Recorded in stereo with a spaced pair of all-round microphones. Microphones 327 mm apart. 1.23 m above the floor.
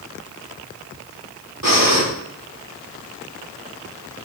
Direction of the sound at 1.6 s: 80° right.